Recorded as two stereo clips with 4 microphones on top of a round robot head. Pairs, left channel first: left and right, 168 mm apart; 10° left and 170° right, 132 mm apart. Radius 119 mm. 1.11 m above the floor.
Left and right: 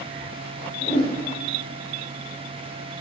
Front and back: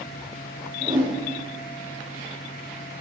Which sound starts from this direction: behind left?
A whoosh, at 0.8 s.